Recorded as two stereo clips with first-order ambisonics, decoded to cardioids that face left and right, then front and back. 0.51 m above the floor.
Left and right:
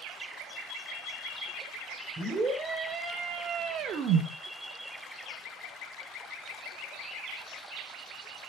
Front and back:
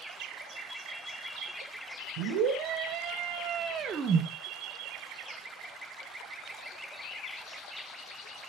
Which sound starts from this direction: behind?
A scream, at 2.2 s.